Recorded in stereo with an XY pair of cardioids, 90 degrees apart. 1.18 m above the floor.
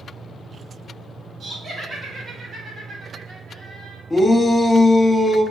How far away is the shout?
About 1.2 m.